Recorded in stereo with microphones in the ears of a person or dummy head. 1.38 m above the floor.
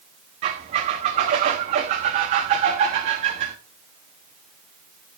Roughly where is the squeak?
Right.